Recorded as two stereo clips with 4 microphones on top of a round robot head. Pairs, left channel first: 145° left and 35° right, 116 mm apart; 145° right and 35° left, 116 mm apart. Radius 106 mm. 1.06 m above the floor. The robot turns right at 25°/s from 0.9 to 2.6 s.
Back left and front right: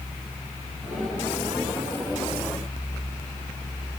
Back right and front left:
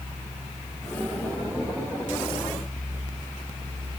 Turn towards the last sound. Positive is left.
No sound to turn to.